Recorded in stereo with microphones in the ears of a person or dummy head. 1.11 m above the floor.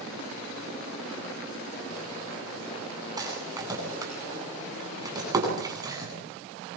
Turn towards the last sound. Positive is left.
turn(degrees=-20)  # may be behind; listen again after turning